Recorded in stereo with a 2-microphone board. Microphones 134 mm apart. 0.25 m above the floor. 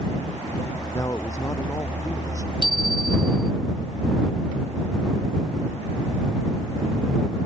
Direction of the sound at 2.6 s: 35° right (ahead or behind).